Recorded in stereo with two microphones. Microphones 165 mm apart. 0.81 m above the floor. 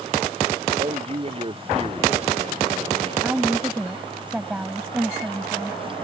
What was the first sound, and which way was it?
A man speaking, 35° right (ahead or behind).